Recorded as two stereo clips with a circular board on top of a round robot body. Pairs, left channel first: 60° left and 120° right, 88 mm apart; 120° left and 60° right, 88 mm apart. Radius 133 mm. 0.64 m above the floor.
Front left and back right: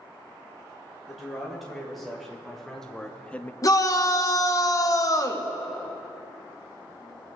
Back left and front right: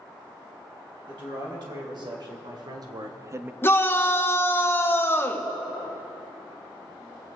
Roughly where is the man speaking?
Ahead right.